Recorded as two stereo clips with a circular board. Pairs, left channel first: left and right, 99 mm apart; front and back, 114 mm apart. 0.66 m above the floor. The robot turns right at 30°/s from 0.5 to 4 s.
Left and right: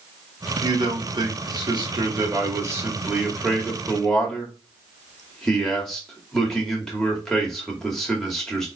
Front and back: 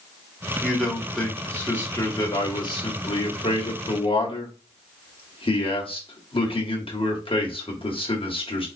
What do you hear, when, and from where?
0.6 s a man speaking: 95° right, 1.6 m; by 8.7 s 5° left, 1.6 m